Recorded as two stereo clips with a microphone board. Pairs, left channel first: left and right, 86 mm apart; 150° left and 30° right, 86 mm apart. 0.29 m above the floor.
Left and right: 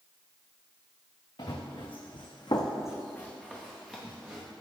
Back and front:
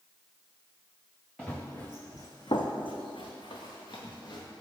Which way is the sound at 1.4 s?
70° left.